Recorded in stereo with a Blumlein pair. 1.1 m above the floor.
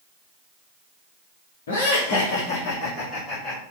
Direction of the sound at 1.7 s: 55° left.